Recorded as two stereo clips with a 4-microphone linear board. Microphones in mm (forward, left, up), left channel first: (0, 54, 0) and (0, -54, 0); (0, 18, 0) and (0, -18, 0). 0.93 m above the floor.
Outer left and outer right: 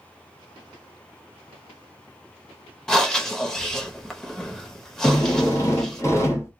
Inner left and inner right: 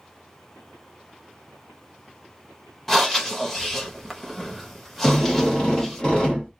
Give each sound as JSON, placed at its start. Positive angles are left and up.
{"t": 2.9, "sound": "breathing", "side_deg": 5, "distance_m": 0.8}
{"t": 5.0, "sound": "a drill", "side_deg": 25, "distance_m": 1.0}